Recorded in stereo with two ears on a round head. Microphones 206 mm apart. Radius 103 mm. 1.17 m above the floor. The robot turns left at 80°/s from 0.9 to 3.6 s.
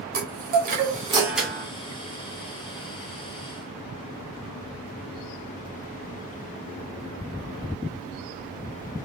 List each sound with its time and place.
0.1 s a chime: 140° right, 1.4 m; by 1.7 s 160° left, 1.4 m